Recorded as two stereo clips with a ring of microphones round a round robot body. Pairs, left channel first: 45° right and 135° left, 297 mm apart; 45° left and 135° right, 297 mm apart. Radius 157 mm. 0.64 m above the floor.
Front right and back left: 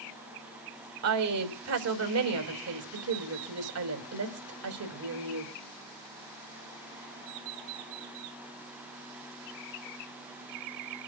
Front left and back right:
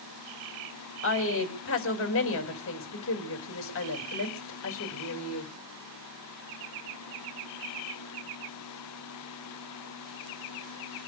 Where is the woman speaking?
95° left, 5 m.